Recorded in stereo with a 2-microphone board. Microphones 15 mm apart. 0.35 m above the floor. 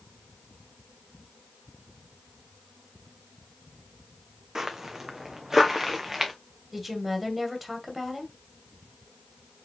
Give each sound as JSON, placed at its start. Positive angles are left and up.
{"t": 4.5, "sound": "footsteps", "side_deg": -35, "distance_m": 1.3}
{"t": 6.7, "sound": "a woman speaking", "side_deg": -10, "distance_m": 2.0}